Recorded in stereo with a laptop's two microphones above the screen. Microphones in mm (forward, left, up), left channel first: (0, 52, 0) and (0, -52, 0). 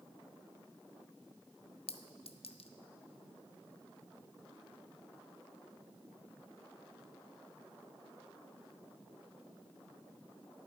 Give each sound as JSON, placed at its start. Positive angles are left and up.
{"t": 1.9, "sound": "a clink", "side_deg": 70, "distance_m": 0.5}